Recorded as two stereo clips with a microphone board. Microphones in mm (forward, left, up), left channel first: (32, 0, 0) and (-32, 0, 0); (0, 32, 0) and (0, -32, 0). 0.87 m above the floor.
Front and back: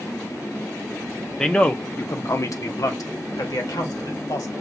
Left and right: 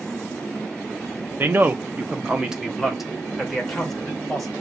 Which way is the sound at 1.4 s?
75° right.